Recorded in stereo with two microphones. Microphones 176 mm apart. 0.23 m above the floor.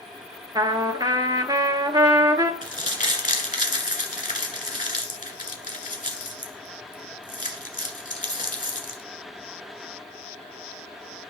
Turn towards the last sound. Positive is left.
turn(degrees=50)  # may be behind; listen again after turning